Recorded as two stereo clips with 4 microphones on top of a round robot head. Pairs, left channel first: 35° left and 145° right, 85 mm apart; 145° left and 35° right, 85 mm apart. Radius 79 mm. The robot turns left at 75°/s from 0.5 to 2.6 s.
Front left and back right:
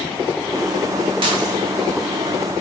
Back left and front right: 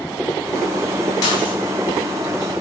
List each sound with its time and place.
1.2 s dishes clattering: 170° right, 1.7 m; by 1.6 s 165° left, 1.7 m